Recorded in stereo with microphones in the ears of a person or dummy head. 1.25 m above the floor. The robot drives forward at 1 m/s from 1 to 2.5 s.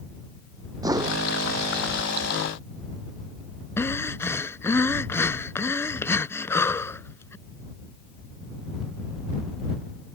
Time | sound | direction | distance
0.8 | a whoosh | 20° right (ahead or behind) | ?
3.8 | breathing | 15° left (ahead or behind) | ?